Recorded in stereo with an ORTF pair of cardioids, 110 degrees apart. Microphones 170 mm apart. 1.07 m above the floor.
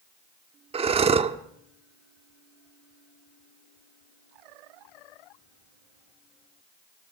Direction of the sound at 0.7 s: 35° right.